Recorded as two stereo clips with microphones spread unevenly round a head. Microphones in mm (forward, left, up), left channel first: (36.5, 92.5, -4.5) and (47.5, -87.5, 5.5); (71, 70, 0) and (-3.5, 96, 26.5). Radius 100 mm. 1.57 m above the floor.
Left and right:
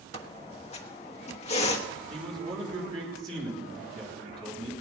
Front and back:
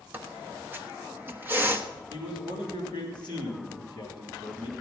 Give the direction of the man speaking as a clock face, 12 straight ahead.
5 o'clock.